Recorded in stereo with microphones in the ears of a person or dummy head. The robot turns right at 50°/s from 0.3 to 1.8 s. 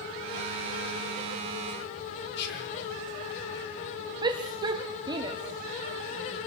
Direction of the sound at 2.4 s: 65° left (ahead or behind).